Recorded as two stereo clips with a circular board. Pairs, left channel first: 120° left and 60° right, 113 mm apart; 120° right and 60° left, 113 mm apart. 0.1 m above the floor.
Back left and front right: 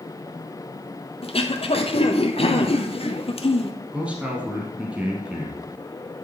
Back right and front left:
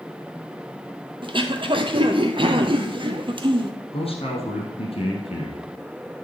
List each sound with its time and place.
1.2 s throat clearing: 95° left, 0.9 m
3.9 s a man speaking: 140° right, 2.5 m